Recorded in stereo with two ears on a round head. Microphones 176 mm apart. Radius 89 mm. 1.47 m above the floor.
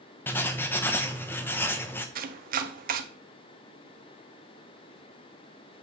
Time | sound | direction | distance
0.3 | writing | 10° left (ahead or behind) | 0.7 m
2.1 | chopping | 45° right (ahead or behind) | 0.7 m